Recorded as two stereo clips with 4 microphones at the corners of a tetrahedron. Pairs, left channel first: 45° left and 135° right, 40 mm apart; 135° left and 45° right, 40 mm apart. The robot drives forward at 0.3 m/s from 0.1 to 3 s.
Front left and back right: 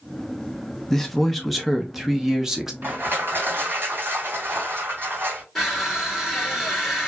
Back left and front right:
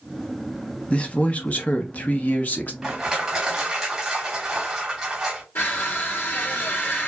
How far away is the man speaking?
About 0.8 m.